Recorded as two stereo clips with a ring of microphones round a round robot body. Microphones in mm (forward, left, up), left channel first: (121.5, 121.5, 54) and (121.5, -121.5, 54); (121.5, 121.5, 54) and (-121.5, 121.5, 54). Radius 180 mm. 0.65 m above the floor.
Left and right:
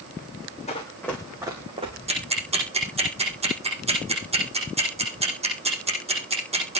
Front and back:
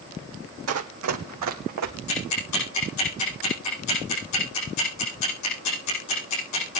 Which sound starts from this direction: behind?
Running footsteps, at 0.7 s.